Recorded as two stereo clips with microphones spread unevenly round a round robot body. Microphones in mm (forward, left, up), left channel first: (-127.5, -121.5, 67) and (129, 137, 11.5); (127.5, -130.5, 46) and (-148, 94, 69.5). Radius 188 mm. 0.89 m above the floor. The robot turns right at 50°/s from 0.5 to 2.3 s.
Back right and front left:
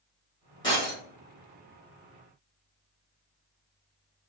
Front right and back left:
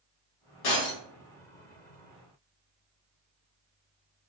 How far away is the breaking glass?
About 1.1 m.